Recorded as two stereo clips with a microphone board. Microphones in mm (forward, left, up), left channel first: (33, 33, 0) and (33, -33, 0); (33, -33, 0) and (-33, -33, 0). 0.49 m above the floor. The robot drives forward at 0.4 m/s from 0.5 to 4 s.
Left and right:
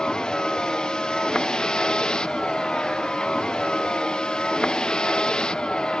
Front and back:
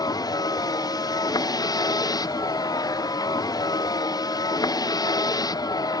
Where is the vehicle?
10° left.